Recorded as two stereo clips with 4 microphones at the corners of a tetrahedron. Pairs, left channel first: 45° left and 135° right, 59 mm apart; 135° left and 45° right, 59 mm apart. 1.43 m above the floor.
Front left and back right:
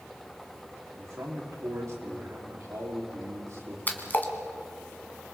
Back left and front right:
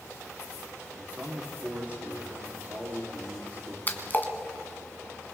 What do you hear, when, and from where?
0.9 s a man speaking: 105° right, 4 m
3.9 s a splash: 90° left, 1.9 m